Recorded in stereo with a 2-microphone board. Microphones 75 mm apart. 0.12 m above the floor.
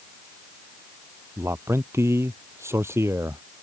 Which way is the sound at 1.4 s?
35° right (ahead or behind).